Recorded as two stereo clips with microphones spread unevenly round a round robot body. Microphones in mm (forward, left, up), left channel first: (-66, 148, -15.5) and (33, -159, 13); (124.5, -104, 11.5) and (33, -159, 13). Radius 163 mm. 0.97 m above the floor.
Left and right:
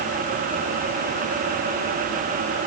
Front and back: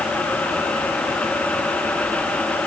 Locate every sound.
Only background noise.